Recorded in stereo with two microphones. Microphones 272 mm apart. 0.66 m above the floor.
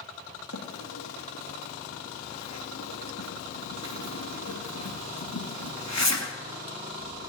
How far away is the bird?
About 2.5 m.